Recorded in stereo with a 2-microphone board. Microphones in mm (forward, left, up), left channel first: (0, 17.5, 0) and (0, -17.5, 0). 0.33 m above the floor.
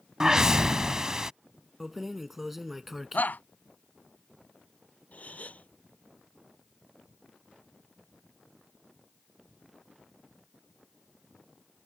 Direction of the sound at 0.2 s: 20° right (ahead or behind).